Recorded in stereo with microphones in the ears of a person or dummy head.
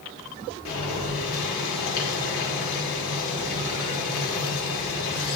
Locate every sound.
0.7 s boiling: 70° left (ahead or behind), 2.0 m